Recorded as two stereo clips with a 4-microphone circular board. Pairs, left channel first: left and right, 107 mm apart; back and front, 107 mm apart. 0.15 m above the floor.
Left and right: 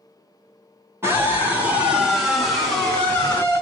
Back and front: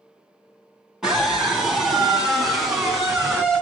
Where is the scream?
75° right, 1.8 m; by 3.6 s 85° left, 1.7 m.